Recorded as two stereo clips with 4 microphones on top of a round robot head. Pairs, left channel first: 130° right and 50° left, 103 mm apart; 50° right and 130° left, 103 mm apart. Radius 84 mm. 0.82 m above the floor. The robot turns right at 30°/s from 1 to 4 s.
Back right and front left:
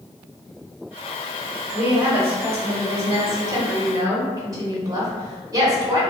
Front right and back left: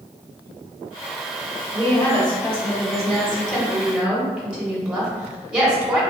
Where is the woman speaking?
10° right, 1.1 m; by 6.0 s 60° left, 1.1 m.